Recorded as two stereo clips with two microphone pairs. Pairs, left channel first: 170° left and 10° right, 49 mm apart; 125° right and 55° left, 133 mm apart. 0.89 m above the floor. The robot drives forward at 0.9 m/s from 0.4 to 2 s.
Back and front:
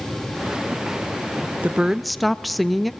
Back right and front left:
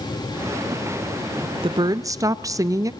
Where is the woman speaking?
30° left, 0.6 m; by 2.9 s 75° left, 0.5 m.